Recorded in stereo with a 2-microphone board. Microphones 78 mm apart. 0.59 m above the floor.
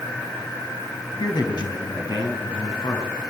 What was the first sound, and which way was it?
A man speaking, 65° left (ahead or behind).